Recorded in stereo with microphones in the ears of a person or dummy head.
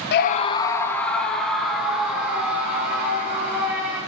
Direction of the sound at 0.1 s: 50° left (ahead or behind).